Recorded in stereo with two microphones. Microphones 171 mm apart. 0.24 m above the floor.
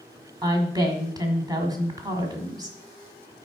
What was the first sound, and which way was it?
A woman speaking, 25° right (ahead or behind).